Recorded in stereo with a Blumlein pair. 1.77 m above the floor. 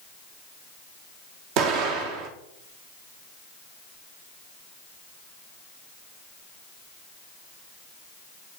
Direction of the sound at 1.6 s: 40° right.